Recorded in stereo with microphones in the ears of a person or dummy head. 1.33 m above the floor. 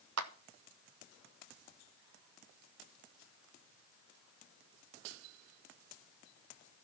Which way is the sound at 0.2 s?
75° right (ahead or behind).